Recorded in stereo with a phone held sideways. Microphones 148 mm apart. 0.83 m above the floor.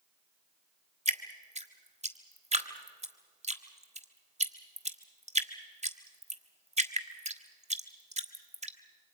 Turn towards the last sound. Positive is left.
turn(degrees=-50)  # may be behind; listen again after turning